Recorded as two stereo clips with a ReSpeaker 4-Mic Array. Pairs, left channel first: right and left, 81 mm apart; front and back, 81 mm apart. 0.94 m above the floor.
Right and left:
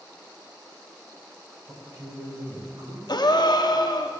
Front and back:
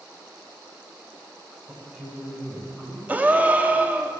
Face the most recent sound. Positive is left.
turn(degrees=-110)